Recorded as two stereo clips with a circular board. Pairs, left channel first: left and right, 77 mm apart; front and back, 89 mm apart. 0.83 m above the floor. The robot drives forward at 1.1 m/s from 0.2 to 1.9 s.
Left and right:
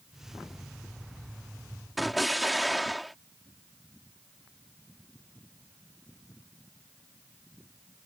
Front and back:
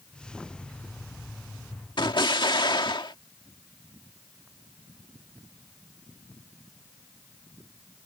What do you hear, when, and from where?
2.0 s an explosion: straight ahead